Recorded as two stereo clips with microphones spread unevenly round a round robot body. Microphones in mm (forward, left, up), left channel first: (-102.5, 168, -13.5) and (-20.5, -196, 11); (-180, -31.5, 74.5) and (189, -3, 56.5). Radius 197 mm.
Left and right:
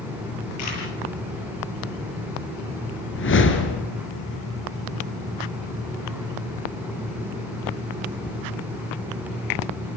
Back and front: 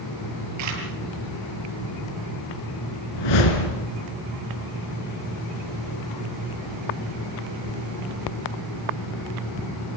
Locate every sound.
0.6 s a camera shutter: 50° left, 7.5 m
3.1 s a whoosh: 160° left, 3 m